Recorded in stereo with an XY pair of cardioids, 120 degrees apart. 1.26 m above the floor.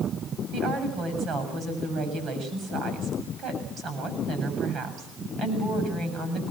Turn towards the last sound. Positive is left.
turn(degrees=-60)